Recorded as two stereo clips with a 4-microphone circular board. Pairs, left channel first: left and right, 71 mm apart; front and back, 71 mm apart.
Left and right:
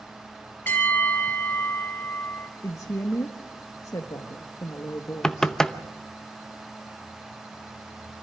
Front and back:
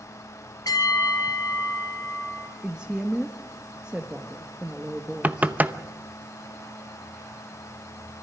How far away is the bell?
About 2.5 m.